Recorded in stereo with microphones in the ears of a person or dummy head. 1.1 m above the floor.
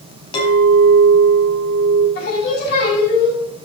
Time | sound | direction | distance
0.3 | a clink | 30° left (ahead or behind) | 5 m
2.1 | singing | 60° left (ahead or behind) | 5 m